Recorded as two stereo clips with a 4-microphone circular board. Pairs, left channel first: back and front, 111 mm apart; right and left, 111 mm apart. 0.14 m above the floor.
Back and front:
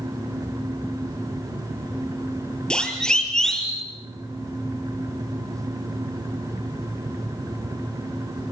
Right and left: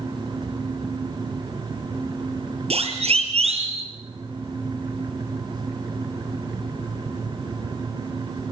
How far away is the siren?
About 4.5 m.